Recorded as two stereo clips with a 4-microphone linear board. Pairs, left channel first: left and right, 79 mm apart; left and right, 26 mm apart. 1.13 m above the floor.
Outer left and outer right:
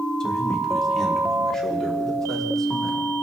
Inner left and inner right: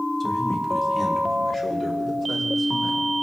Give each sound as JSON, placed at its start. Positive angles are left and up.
{"t": 0.2, "sound": "a man speaking", "side_deg": 10, "distance_m": 1.9}